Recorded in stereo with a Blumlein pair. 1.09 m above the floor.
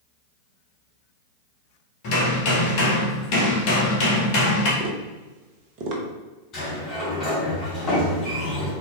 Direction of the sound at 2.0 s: 45° left.